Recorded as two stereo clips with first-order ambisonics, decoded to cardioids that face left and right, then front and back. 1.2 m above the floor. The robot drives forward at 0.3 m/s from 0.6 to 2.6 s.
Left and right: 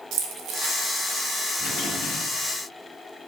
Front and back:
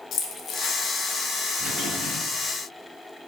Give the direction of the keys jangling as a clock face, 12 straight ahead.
2 o'clock.